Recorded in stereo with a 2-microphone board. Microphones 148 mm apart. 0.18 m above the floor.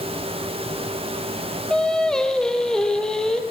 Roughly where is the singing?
Centre.